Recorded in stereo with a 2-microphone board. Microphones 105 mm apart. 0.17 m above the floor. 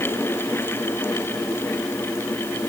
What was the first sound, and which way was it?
Only background noise.